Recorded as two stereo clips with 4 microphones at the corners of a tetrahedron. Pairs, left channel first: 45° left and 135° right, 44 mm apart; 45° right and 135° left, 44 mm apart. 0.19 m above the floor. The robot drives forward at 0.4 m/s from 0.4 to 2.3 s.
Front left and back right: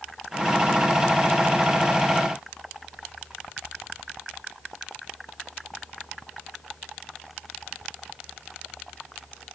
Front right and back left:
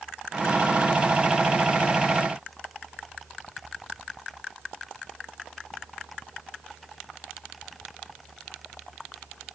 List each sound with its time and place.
Only background noise.